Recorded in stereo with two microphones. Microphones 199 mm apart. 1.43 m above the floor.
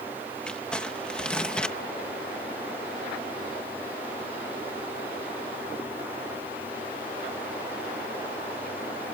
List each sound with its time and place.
0.5 s crumpling: 5° left (ahead or behind)